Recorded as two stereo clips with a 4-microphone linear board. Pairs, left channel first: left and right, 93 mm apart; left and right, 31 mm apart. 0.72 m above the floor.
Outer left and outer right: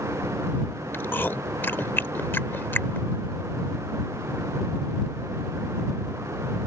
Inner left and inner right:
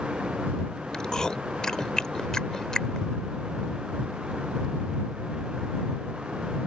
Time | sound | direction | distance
0.9 | chewing | 20° left (ahead or behind) | ?